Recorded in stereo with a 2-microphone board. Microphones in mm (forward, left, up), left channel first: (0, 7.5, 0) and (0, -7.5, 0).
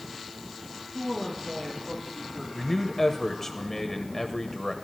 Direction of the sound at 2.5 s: 25° left (ahead or behind).